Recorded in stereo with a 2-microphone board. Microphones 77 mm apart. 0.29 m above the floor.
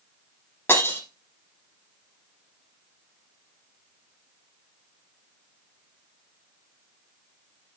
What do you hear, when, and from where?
0.7 s breaking glass: 30° left (ahead or behind), 7.5 m